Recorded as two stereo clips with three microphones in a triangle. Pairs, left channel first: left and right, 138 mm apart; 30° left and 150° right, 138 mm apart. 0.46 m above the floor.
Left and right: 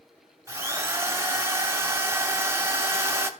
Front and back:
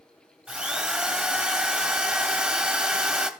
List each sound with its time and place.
0.5 s a drill: 80° right, 1.3 m